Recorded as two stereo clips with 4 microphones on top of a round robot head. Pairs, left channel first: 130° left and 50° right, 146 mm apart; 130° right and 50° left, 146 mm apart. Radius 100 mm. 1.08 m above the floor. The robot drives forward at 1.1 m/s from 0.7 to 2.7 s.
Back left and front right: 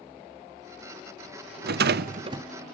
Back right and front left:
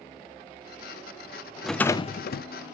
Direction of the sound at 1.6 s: 40° right.